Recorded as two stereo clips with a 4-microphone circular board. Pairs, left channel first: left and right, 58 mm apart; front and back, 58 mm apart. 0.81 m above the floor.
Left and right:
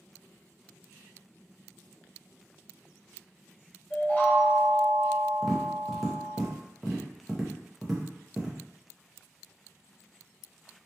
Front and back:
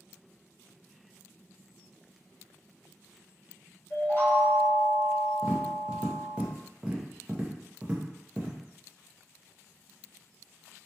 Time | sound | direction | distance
3.9 | a chime | 35° left | 1.0 m
5.4 | tapping | 165° right | 0.6 m